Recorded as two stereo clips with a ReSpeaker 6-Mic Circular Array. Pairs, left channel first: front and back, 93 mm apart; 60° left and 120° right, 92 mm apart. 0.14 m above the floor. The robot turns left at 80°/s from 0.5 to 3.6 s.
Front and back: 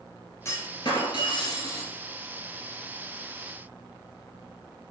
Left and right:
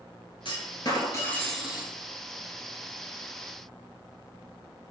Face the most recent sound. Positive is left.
turn(degrees=170)